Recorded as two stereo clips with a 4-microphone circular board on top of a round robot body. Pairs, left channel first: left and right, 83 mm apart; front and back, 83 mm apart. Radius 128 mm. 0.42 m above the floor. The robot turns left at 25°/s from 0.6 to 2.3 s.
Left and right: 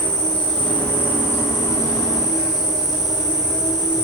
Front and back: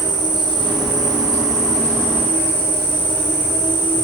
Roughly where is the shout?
No shout in this recording.